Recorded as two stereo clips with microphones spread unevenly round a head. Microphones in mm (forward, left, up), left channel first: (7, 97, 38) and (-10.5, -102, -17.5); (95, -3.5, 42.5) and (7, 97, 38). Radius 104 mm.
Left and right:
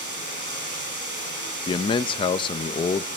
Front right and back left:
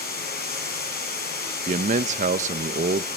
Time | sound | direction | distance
0.0 | running water | 55° right | 10 m
1.7 | a man speaking | 160° left | 0.8 m